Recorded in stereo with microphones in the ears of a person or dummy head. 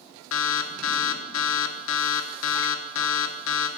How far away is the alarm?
About 3 m.